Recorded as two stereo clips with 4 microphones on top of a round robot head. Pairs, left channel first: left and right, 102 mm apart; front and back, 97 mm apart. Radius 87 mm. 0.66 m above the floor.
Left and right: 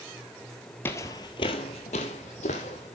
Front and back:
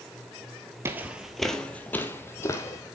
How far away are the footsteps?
About 0.7 m.